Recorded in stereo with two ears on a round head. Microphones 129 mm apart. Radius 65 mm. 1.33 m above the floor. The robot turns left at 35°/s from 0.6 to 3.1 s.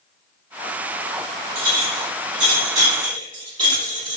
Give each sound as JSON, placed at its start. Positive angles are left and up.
{"t": 1.6, "sound": "a clink", "side_deg": -70, "distance_m": 1.7}